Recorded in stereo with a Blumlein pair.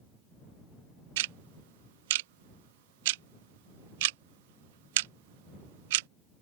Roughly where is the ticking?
Ahead right.